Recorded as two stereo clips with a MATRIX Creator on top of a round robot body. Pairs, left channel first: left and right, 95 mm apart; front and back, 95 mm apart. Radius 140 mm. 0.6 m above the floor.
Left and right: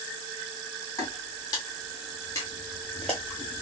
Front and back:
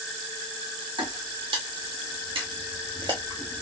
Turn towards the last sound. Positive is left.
turn(degrees=-65)